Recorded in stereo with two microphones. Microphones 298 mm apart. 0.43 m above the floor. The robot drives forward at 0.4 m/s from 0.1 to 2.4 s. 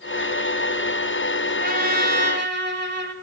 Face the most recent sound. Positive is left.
turn(degrees=-35)  # may be behind; listen again after turning